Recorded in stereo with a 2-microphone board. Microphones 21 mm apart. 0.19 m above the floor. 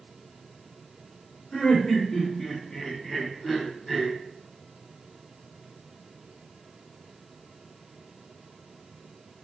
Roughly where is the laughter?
Left.